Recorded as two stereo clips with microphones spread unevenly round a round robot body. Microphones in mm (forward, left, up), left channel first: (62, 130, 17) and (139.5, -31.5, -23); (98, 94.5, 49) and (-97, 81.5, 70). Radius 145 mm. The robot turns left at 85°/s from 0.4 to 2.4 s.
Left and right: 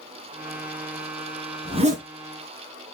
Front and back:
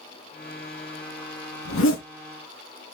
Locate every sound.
1.6 s a zipper: 5° left, 3 m; by 2.0 s 30° right, 3 m